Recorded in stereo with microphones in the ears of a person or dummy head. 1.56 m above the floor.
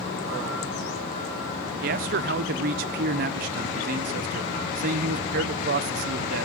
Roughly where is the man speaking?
Right.